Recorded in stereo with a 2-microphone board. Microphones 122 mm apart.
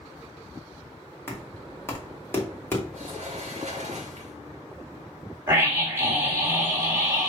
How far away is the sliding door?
About 1.3 m.